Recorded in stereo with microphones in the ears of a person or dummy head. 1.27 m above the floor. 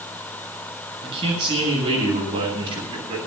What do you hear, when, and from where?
1.0 s a man speaking: 30° right (ahead or behind), 9 m